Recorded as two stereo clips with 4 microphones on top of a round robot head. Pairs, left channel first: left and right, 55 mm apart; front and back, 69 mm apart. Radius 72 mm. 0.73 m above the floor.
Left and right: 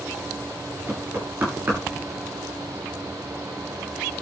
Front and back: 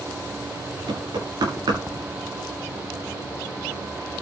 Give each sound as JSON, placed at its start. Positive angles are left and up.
{"t": 0.9, "sound": "knocking", "azimuth_deg": -150, "distance_m": 9.5}